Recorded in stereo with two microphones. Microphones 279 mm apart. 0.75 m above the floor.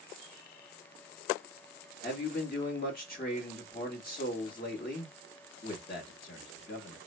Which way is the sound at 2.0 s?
30° left (ahead or behind).